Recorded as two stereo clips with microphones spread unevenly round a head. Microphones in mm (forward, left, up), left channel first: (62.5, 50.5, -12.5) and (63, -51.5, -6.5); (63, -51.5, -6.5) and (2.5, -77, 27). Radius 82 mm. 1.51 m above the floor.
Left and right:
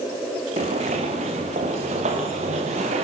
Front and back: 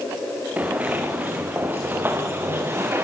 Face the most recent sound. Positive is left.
turn(degrees=-110)